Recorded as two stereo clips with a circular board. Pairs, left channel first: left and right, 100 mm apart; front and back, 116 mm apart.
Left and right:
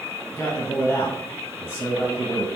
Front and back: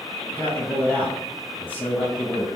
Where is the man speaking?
55° left, 1.3 m.